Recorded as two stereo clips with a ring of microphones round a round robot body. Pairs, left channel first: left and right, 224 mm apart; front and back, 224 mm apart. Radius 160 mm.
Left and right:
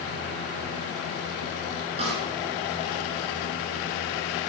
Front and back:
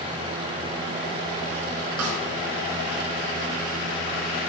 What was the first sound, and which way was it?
A snare drum, 160° right.